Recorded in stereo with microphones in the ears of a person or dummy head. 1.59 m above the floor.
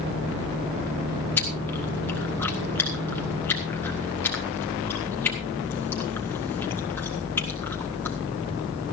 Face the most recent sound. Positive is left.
turn(degrees=10)  # may be behind; listen again after turning